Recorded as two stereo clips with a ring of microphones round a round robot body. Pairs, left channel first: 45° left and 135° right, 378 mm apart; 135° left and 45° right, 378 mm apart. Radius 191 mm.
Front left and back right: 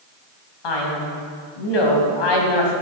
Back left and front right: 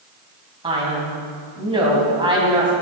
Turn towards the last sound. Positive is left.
turn(degrees=30)